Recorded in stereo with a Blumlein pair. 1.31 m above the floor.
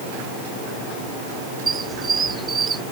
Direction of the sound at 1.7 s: 15° right.